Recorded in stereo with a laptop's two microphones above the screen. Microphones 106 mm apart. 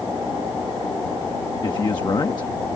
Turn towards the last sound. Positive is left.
turn(degrees=45)  # may be behind; listen again after turning